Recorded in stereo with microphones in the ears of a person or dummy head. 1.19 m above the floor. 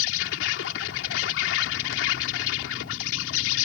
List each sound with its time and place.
0.0 s an insect: 75° left (ahead or behind)